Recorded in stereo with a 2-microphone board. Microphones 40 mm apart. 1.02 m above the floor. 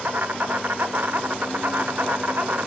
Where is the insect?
50° right (ahead or behind), 1.0 m.